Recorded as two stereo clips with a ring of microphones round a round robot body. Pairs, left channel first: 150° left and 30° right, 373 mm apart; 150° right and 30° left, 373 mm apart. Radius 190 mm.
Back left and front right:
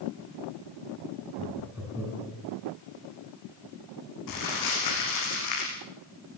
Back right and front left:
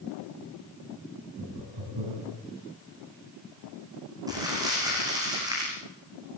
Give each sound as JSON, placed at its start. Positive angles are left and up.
{"t": 1.4, "sound": "laughter", "azimuth_deg": 55, "distance_m": 6.0}
{"t": 4.3, "sound": "crumpling", "azimuth_deg": 110, "distance_m": 8.0}